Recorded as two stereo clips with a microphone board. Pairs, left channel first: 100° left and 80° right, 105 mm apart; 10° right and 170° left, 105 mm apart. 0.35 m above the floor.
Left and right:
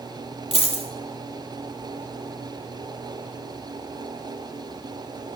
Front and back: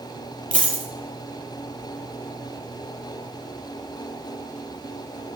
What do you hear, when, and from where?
0.5 s a dropped coin: 70° left, 1.0 m